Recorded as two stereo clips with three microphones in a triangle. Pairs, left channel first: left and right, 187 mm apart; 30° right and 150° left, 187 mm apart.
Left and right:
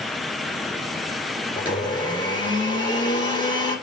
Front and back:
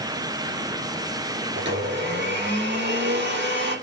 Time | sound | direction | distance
1.6 | a blender | 155° left | 4 m